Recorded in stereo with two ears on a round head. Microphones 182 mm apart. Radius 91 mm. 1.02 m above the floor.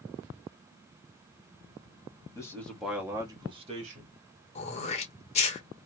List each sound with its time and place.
2.4 s a man speaking: 15° left (ahead or behind), 1.4 m; by 4.1 s 40° right (ahead or behind), 1.8 m
4.5 s throat clearing: 35° left (ahead or behind), 1.0 m